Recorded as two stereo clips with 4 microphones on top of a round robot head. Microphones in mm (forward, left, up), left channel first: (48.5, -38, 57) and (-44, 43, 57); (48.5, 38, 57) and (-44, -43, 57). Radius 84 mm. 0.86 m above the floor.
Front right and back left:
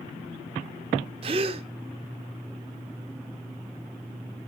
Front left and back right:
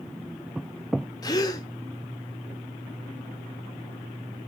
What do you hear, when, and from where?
1.2 s a gasp: 100° left, 0.6 m